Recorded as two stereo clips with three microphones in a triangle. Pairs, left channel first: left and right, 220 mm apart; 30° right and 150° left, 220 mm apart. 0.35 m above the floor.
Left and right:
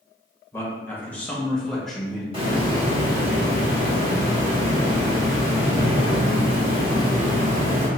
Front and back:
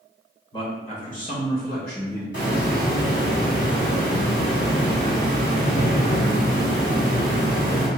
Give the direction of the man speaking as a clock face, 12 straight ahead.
11 o'clock.